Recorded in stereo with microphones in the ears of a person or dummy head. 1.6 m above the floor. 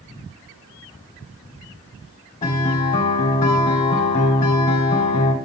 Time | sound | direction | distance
2.4 | a guitar | 30° left (ahead or behind) | 2.5 m